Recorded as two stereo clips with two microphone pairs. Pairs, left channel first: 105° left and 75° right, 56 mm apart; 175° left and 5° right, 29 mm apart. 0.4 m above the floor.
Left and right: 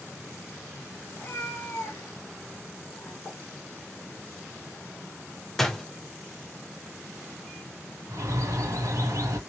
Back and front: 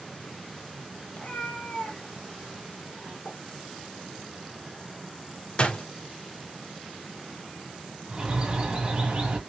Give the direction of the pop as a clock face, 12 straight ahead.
6 o'clock.